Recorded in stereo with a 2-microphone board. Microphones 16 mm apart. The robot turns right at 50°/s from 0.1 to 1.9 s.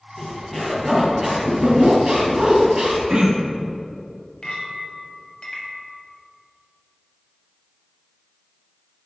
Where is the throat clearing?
65° right (ahead or behind), 1.2 m.